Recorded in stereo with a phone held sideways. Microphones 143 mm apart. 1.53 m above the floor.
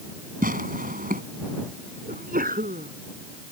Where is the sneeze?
80° right.